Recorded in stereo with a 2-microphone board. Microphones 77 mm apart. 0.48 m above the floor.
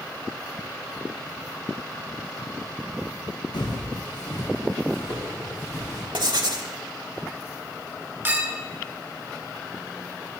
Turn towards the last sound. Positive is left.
turn(degrees=-25)  # may be behind; listen again after turning